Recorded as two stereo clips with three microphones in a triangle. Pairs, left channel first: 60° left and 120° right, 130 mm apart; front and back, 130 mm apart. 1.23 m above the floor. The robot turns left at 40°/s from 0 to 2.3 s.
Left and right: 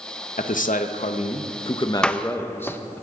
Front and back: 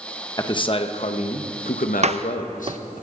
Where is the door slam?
145° left, 0.6 m; by 2.8 s 135° left, 0.6 m.